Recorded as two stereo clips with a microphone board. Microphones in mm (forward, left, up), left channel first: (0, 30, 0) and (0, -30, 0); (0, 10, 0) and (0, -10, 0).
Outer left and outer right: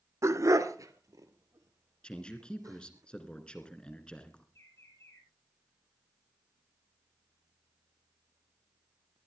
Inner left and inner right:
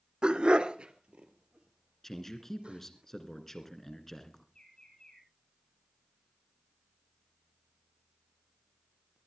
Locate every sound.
0.2 s a dog barking: 55° right (ahead or behind), 0.9 m; by 3.0 s 70° right (ahead or behind), 4.5 m
2.0 s a man speaking: 15° left (ahead or behind), 2.5 m
4.5 s a bird: 50° left (ahead or behind), 6 m